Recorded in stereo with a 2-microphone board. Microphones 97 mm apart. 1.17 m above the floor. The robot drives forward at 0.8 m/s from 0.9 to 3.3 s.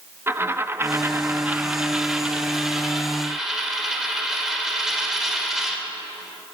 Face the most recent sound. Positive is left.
turn(degrees=-5)  # may be behind; listen again after turning